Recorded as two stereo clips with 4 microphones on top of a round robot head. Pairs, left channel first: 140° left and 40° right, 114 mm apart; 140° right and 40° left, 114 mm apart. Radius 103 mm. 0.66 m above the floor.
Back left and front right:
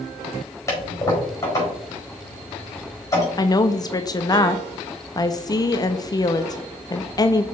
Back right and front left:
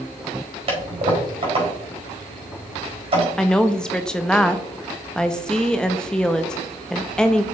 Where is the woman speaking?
140° left, 0.8 m.